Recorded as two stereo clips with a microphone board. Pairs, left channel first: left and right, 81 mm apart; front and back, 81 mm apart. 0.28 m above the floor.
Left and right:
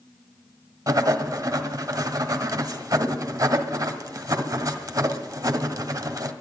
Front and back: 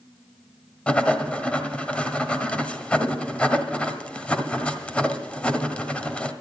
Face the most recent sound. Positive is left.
turn(degrees=-70)